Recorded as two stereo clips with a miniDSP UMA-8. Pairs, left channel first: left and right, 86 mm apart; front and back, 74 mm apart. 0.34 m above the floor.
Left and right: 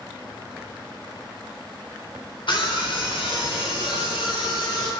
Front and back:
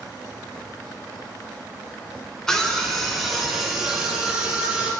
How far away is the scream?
About 2.5 m.